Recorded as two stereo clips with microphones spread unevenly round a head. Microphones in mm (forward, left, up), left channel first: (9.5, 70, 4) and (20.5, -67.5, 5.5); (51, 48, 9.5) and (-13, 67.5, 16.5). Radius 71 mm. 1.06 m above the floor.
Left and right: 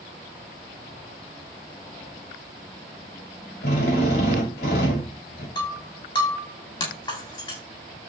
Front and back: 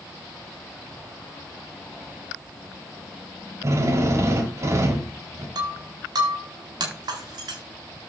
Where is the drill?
125° left, 3.5 m.